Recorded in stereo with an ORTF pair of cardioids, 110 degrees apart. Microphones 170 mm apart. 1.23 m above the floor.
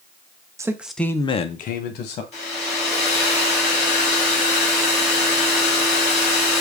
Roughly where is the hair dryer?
Ahead left.